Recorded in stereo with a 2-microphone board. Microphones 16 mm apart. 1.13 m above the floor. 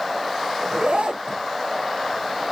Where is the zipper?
75° right (ahead or behind), 0.6 m.